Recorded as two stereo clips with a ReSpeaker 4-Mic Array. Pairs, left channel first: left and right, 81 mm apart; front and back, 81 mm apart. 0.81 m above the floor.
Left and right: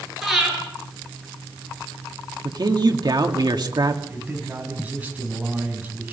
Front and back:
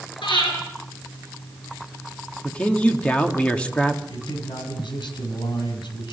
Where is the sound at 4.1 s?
20° right, 5.5 m.